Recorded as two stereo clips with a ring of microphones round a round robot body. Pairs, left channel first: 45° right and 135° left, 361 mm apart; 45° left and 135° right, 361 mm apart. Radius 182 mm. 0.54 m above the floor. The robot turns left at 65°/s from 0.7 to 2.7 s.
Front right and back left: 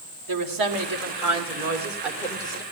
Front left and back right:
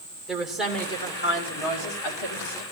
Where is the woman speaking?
135° left, 2 m; by 2.6 s 10° left, 2 m.